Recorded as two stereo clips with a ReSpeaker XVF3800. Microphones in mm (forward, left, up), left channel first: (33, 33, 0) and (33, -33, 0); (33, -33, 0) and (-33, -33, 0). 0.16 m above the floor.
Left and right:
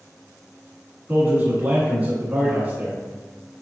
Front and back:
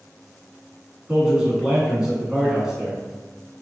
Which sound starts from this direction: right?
A man speaking, at 1.1 s.